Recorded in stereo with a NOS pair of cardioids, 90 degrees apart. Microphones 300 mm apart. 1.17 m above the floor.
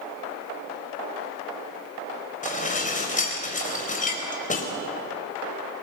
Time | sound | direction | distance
2.4 | dishes clattering | 25° left | 4.5 m